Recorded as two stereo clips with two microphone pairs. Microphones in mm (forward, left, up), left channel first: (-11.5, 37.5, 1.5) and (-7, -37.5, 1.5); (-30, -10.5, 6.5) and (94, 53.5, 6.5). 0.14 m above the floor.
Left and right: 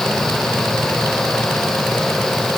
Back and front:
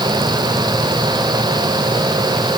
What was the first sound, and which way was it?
Only background noise.